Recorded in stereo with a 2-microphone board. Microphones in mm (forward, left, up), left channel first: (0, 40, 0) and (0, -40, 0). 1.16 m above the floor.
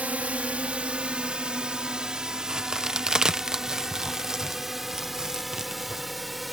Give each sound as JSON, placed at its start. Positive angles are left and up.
{"t": 0.0, "sound": "a drone", "side_deg": -20}
{"t": 2.5, "sound": "a crack", "side_deg": -10}